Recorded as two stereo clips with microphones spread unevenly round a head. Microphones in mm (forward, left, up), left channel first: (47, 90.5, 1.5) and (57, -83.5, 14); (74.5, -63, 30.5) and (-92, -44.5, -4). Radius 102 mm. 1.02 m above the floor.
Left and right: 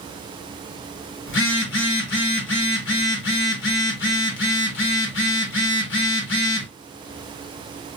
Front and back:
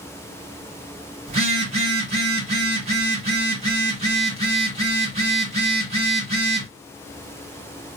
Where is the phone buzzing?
115° left, 1.1 m.